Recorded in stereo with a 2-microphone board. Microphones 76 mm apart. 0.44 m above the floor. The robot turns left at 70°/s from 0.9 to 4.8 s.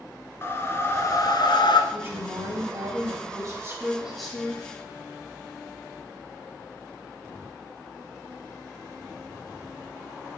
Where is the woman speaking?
20° right, 3.5 m; by 4.6 s 150° left, 3.5 m.